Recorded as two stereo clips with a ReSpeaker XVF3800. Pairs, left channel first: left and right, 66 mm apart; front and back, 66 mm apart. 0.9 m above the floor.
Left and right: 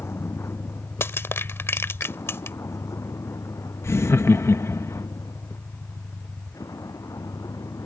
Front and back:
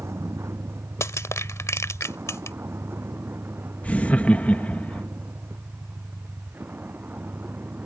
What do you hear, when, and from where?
0.0 s a vehicle: 135° left; by 7.8 s 115° left
1.0 s crushing: 40° left
3.8 s laughter: 60° left